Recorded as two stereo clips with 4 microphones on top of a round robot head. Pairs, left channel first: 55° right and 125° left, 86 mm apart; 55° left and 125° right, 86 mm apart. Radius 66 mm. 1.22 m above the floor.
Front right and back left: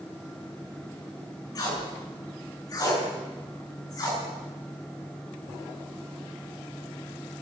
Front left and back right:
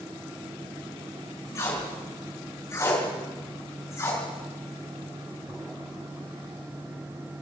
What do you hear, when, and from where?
1.6 s tape being pulled: 5° right, 6.5 m